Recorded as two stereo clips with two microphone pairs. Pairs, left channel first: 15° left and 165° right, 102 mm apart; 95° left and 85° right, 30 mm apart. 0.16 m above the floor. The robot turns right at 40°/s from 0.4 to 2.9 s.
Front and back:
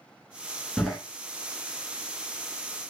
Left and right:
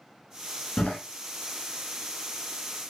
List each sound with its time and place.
0.8 s a door slam: 100° left, 1.2 m; by 1.0 s 105° left, 1.2 m